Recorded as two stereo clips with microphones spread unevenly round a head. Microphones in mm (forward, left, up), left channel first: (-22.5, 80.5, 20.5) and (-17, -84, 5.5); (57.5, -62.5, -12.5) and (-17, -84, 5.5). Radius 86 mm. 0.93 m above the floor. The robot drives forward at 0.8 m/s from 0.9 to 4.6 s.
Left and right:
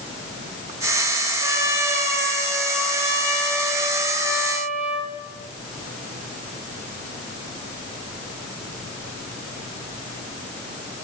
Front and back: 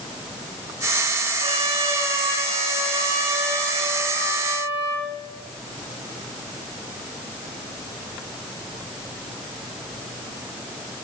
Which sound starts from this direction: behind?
A trumpet, at 1.4 s.